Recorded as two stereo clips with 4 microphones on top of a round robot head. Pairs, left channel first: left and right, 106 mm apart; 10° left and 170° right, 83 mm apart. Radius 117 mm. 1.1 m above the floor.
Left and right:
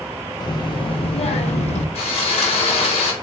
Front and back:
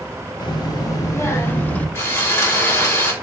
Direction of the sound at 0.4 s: 40° left.